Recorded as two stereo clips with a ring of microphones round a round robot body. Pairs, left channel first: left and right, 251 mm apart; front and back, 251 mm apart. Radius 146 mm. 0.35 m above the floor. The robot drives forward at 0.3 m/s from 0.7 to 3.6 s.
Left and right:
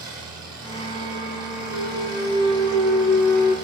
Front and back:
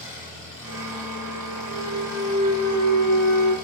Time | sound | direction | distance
0.0 | an engine running | 120° right | 8.5 m
1.7 | a clunk | 135° right | 4 m